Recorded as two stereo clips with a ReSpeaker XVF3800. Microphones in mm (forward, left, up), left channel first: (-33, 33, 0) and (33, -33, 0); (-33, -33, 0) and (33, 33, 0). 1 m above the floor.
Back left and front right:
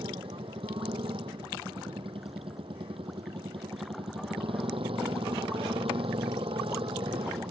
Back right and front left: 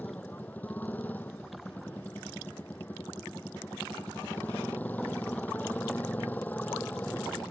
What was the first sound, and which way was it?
A motorcycle, 60° right.